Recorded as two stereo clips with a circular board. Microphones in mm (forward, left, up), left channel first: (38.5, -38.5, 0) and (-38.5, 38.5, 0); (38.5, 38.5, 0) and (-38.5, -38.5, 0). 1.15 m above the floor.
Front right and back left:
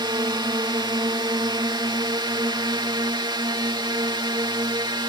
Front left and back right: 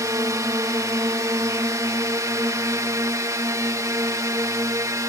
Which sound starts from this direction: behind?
A drone, at 0.0 s.